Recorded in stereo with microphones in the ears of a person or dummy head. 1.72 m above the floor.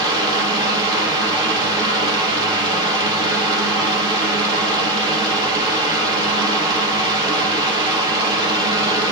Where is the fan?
20° right (ahead or behind), 2.5 m.